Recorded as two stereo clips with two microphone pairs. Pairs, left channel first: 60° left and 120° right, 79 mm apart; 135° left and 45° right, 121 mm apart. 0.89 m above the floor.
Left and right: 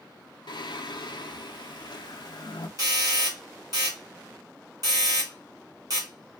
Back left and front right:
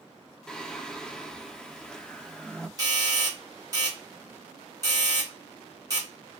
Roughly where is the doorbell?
Right.